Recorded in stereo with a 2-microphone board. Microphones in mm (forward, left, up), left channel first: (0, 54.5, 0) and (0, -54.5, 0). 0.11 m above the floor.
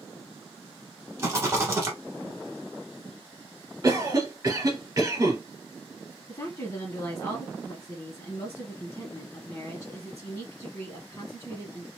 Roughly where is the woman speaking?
Left.